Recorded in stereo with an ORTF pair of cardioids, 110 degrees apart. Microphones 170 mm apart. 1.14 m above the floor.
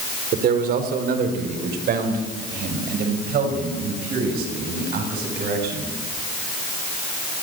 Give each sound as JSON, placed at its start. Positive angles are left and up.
{"t": 0.3, "sound": "a man speaking", "azimuth_deg": -60, "distance_m": 4.0}